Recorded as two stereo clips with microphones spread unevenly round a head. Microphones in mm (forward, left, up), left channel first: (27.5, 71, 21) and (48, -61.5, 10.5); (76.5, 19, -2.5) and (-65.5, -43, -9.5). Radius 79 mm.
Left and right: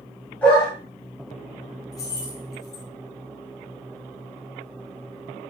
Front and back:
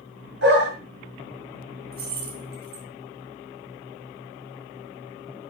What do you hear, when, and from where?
0.4 s a dog barking: straight behind, 6 m
1.9 s keys jangling: 170° left, 4 m